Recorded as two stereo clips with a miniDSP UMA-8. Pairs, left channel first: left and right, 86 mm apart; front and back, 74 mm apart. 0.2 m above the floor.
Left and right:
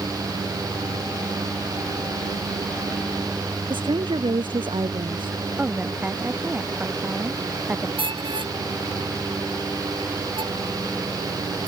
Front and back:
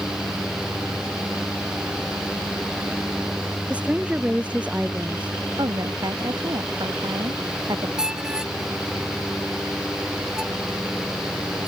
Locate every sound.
3.7 s a woman speaking: 105° right
5.6 s a woman speaking: 160° right
8.0 s a squeak: 100° right